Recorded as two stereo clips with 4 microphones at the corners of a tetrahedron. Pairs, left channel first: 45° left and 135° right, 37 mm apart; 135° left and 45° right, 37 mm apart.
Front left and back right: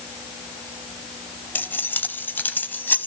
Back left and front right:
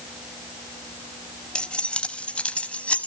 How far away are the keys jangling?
About 1.9 m.